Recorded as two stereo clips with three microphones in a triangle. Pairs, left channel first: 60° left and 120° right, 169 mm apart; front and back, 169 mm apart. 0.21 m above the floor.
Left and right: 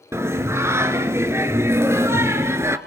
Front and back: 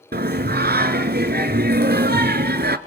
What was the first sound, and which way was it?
Singing, 165° left.